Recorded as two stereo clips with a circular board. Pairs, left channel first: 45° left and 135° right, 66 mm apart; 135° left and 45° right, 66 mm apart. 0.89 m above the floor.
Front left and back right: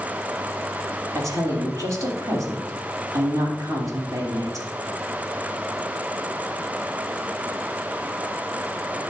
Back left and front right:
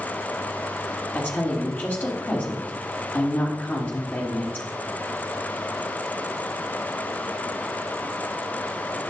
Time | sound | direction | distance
1.1 | a woman speaking | 165° right | 2.5 m